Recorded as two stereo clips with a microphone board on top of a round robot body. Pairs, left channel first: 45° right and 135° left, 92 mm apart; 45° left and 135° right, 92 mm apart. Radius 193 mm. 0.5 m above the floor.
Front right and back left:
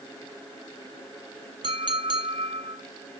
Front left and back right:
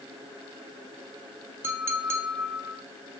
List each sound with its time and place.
1.6 s a clink: 165° left, 1.4 m